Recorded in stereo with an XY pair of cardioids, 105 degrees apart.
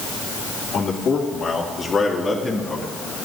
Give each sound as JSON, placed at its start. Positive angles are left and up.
{"t": 0.7, "sound": "a man speaking", "azimuth_deg": 55, "distance_m": 3.0}